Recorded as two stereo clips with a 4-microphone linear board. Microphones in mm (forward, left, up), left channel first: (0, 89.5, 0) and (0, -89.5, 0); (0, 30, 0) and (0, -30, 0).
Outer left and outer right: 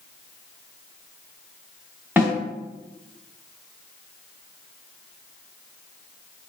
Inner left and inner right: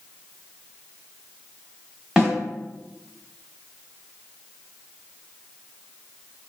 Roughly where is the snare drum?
Centre.